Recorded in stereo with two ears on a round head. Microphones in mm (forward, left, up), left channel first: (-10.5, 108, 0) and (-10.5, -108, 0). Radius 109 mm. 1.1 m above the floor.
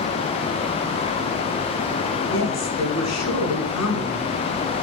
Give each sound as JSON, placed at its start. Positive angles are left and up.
{"t": 2.3, "sound": "a woman speaking", "side_deg": 75, "distance_m": 7.0}